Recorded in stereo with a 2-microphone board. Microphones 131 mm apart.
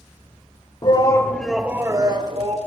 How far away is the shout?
About 1.3 m.